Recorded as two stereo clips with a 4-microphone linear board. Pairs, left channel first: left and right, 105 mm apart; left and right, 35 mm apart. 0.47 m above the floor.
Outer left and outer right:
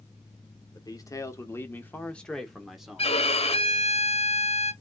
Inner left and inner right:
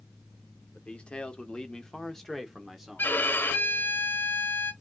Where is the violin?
75° left (ahead or behind), 1.0 m.